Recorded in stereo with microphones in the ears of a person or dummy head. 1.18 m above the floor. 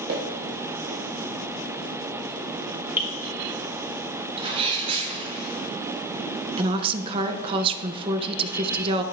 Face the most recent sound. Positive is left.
turn(degrees=-25)  # may be behind; listen again after turning